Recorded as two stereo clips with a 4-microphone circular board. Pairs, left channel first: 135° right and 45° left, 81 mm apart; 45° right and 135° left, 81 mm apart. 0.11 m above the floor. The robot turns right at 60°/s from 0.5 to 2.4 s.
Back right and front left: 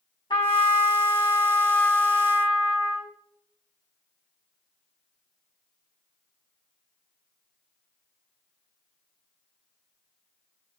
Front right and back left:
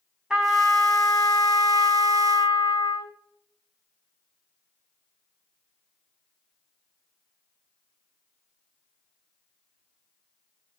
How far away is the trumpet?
About 3.5 m.